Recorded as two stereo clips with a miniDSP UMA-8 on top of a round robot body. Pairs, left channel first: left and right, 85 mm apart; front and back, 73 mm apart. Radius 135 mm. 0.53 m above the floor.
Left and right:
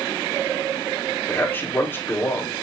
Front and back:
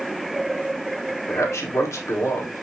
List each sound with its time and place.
1.3 s a man speaking: 35° left, 1.7 m